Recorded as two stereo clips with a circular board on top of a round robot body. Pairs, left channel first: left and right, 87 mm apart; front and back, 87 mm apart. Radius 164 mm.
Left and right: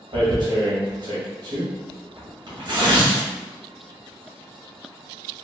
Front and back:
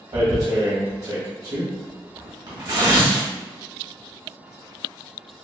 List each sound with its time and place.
0.1 s tearing paper: 130° right, 1.6 m